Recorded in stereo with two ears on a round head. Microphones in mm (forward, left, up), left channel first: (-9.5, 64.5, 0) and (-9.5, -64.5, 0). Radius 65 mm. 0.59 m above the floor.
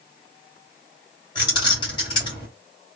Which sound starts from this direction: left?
Keys jangling, at 1.4 s.